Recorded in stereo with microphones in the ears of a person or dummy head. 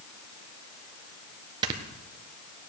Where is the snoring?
25° right (ahead or behind), 1.5 m.